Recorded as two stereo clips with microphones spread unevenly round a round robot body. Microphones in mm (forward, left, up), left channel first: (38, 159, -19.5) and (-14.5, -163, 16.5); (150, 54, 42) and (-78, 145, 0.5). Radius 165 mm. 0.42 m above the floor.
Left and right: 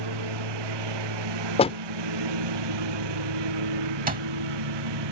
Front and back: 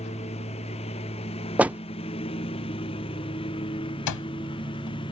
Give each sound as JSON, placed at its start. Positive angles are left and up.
{"t": 0.0, "sound": "a lawn mower", "azimuth_deg": -95}
{"t": 1.6, "sound": "a door slam", "azimuth_deg": 105}
{"t": 4.1, "sound": "an alarm clock", "azimuth_deg": -30}